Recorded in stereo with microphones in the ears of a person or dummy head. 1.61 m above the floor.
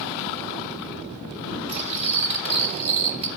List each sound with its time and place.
1.7 s cutlery clinking: 40° right (ahead or behind), 1.3 m